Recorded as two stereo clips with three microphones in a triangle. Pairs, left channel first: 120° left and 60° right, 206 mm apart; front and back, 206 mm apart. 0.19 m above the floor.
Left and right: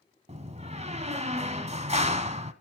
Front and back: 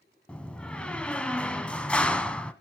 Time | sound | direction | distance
0.3 | a door slam | 80° right | 0.8 m